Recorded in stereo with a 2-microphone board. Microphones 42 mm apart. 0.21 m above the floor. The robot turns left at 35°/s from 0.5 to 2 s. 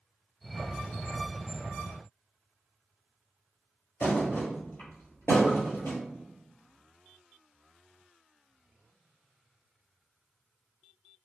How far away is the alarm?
No alarm in this recording.